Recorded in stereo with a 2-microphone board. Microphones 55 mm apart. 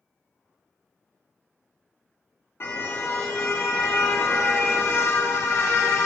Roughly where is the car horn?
Left.